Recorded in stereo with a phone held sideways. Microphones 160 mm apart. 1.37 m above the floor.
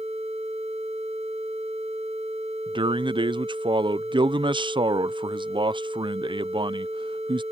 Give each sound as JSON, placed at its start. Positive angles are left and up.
{"t": 2.7, "sound": "a man speaking", "side_deg": -30}